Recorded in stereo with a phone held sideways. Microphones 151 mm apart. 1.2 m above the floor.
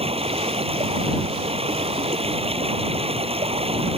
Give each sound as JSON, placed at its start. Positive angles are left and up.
{"t": 0.0, "sound": "running water", "side_deg": -40}